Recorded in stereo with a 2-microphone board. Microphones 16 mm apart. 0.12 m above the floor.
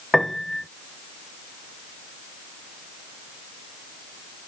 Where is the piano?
25° left (ahead or behind).